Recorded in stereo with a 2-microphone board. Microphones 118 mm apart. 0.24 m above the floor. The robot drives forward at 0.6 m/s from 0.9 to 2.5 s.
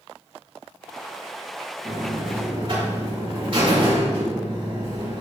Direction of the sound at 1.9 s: 45° right (ahead or behind).